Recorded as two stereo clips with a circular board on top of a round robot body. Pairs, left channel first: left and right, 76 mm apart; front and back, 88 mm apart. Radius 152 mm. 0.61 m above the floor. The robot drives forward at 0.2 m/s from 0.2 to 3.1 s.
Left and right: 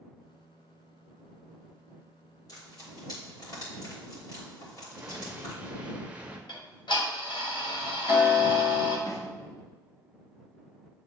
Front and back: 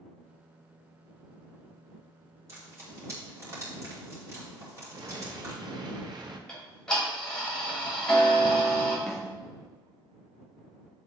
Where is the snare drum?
90° left, 1.6 m.